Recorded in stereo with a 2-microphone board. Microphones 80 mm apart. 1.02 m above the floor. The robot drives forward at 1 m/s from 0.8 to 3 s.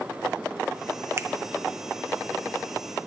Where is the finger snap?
35° right (ahead or behind), 0.5 m; by 1.3 s 30° right (ahead or behind), 0.6 m.